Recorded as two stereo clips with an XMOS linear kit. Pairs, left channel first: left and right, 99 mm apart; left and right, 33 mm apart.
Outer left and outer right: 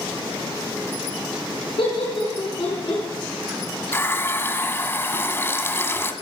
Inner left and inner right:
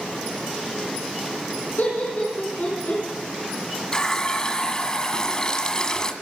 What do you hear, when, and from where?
1.8 s laughter: 65° left (ahead or behind), 4 m
3.9 s a running tap: 25° left (ahead or behind), 1.4 m